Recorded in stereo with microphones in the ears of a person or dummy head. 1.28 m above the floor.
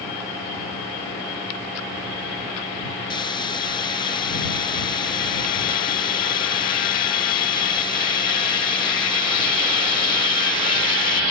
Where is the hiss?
25° left (ahead or behind).